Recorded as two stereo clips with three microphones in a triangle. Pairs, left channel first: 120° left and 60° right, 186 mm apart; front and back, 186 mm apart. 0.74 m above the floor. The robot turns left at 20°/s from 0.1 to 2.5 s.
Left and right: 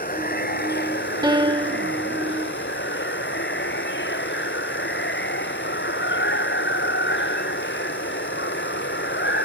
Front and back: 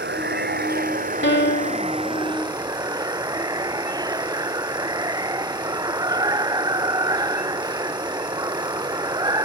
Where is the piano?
10° left; by 1.9 s 5° right.